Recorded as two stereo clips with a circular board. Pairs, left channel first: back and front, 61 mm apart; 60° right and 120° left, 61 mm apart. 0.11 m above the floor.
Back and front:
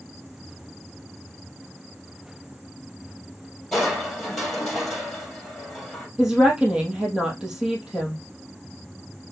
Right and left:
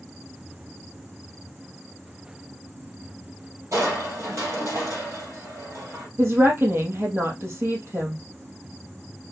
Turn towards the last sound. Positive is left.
turn(degrees=75)